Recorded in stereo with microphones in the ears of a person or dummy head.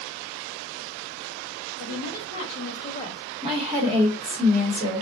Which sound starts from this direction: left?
A woman speaking, at 1.8 s.